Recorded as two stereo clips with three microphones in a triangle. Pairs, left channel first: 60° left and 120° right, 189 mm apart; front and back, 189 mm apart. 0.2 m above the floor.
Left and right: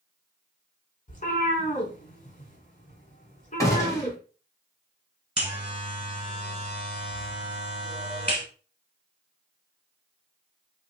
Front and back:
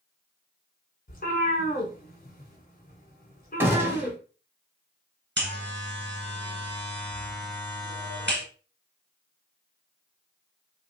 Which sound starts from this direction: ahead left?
A cat meowing, at 1.1 s.